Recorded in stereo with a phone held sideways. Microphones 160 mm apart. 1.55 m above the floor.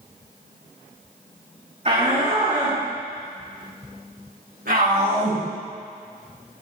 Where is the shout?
45° right (ahead or behind), 4.5 m; by 5.4 s 80° right, 8 m.